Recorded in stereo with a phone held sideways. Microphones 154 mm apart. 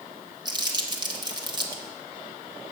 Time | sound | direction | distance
0.5 | crumpling | 30° right (ahead or behind) | 1.0 m